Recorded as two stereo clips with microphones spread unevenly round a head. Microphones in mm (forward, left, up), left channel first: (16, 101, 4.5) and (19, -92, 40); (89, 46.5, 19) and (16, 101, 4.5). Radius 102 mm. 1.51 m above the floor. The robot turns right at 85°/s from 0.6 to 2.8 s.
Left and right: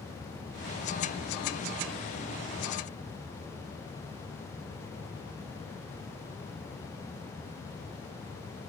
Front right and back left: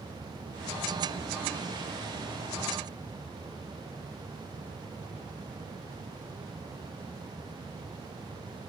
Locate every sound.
Only background noise.